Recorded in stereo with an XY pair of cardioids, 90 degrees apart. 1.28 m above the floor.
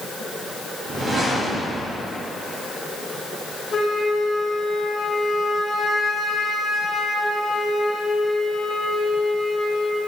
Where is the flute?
30° left, 1.6 m.